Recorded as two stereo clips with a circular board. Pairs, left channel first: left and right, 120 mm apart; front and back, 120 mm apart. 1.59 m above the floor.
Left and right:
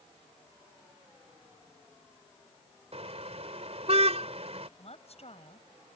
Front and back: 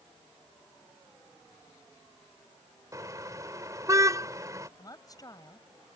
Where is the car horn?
120° right.